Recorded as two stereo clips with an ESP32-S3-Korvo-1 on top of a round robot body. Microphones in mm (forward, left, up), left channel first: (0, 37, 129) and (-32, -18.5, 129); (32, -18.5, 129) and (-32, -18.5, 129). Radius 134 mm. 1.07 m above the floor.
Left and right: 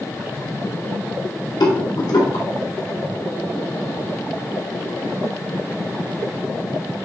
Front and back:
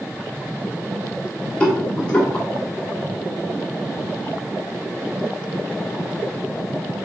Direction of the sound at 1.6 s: 75° left.